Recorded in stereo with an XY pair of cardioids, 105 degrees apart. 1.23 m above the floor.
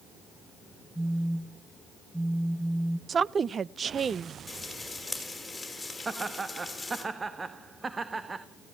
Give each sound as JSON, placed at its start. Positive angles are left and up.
{"t": 0.9, "sound": "a phone buzzing", "azimuth_deg": -5, "distance_m": 0.7}
{"t": 3.1, "sound": "a woman speaking", "azimuth_deg": -40, "distance_m": 0.5}
{"t": 4.5, "sound": "frying", "azimuth_deg": 15, "distance_m": 6.5}
{"t": 6.0, "sound": "laughter", "azimuth_deg": -25, "distance_m": 1.3}